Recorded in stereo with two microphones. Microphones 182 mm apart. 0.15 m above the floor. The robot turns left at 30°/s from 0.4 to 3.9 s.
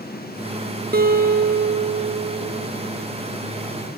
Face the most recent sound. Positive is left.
turn(degrees=170)